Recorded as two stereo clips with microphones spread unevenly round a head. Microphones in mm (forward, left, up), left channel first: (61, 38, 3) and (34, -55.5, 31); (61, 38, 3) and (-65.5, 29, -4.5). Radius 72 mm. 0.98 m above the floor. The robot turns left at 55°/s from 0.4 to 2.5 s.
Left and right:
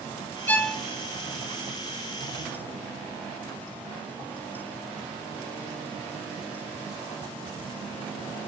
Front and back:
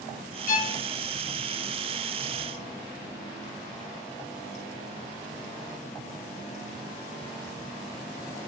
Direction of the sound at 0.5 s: 15° left.